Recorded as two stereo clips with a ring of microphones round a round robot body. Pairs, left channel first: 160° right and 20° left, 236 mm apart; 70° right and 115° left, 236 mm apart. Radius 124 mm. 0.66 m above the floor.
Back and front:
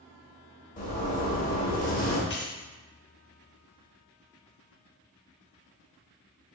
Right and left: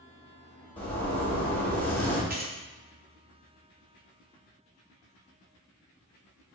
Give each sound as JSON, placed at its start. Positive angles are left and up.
{"t": 0.8, "sound": "a zipper", "azimuth_deg": -145, "distance_m": 1.3}
{"t": 2.3, "sound": "keys jangling", "azimuth_deg": 165, "distance_m": 0.8}